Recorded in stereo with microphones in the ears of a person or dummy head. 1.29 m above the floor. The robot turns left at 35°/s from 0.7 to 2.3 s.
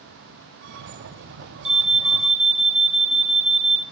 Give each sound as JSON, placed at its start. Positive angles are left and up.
{"t": 1.6, "sound": "an alarm", "side_deg": -35, "distance_m": 0.9}